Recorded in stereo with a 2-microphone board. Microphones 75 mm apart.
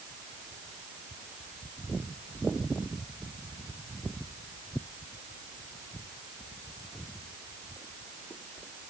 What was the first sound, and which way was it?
Only background noise.